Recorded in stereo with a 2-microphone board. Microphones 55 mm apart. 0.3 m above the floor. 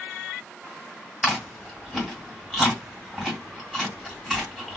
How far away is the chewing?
About 2 m.